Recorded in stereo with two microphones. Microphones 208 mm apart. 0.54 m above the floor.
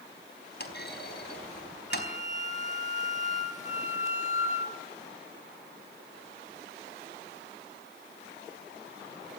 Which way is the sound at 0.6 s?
55° left (ahead or behind).